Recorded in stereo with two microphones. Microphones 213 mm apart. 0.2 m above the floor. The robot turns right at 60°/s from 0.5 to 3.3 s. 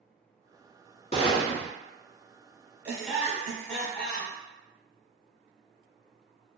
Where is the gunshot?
145° left, 0.8 m; by 1.7 s straight behind, 0.8 m.